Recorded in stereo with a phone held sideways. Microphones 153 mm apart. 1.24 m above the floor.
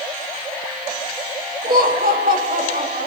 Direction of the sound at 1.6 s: 85° right.